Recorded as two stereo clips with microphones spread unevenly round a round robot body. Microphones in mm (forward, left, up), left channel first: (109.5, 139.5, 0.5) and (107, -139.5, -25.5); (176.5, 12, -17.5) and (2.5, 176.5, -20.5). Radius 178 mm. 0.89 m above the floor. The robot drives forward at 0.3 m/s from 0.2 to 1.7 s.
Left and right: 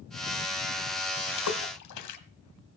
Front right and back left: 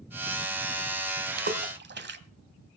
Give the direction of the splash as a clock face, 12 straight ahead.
9 o'clock.